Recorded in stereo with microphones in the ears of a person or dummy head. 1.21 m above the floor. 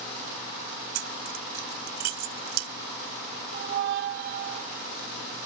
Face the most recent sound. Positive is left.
turn(degrees=-55)  # may be behind; listen again after turning